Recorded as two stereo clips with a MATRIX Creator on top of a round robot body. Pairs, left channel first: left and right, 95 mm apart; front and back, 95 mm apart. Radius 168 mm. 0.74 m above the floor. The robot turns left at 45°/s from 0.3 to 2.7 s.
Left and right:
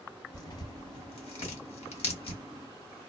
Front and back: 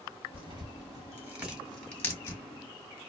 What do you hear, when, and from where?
0.3 s tearing paper: 150° left, 1.3 m; by 2.4 s 55° left, 1.3 m